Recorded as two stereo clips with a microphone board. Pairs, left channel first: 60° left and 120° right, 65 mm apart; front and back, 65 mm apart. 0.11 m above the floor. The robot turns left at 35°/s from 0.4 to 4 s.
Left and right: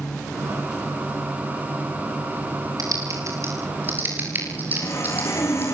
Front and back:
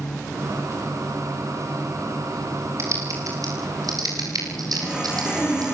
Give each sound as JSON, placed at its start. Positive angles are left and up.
{"t": 2.8, "sound": "typing on a keyboard", "azimuth_deg": -140, "distance_m": 9.5}
{"t": 4.7, "sound": "sawing", "azimuth_deg": 105, "distance_m": 7.0}